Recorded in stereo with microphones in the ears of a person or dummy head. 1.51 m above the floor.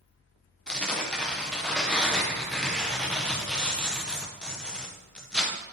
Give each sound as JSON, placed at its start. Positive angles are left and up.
{"t": 0.7, "sound": "tearing paper", "side_deg": 5, "distance_m": 0.6}